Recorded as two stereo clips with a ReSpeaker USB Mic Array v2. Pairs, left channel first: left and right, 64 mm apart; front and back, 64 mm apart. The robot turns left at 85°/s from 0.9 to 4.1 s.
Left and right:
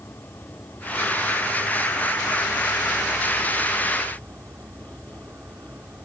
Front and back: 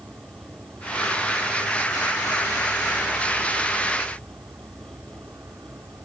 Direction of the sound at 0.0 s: 130° left.